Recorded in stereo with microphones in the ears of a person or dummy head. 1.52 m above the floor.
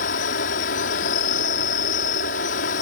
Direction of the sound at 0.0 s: 45° left (ahead or behind).